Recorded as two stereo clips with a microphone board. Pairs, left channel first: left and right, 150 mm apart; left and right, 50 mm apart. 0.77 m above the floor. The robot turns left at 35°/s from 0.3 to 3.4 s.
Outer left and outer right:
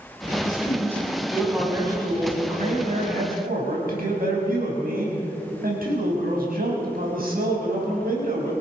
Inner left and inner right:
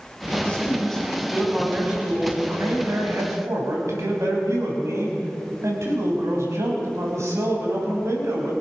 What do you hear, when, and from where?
0.4 s a man speaking: 30° left, 6.5 m; by 8.5 s 75° right, 6.5 m